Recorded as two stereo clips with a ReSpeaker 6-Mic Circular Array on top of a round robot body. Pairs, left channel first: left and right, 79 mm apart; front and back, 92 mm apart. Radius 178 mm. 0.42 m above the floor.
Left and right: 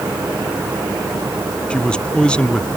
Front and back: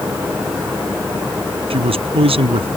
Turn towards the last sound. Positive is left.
turn(degrees=170)